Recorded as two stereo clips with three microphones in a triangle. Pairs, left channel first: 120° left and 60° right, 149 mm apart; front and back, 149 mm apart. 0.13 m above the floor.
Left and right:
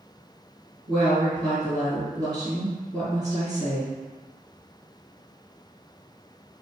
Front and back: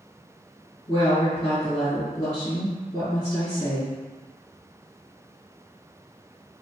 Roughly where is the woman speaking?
Ahead right.